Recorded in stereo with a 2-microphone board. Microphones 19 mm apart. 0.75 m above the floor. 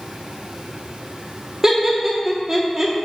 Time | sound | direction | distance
1.6 | laughter | 25° right (ahead or behind) | 0.8 m